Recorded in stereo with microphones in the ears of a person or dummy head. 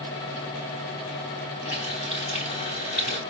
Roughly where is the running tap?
Left.